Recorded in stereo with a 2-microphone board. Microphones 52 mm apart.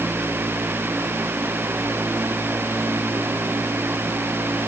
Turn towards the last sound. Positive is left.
No sound to turn to.